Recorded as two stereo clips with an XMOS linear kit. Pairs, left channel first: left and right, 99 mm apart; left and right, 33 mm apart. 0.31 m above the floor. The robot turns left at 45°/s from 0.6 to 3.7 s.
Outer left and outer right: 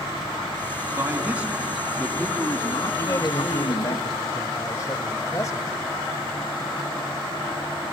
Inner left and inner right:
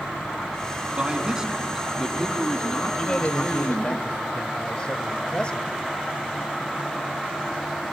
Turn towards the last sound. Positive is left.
turn(degrees=80)